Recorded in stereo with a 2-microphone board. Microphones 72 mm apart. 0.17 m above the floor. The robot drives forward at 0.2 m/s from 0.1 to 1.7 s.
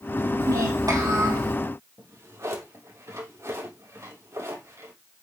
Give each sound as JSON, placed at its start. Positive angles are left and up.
{"t": 0.4, "sound": "a child speaking", "side_deg": -60, "distance_m": 4.5}
{"t": 2.0, "sound": "a drawer", "side_deg": -50, "distance_m": 3.5}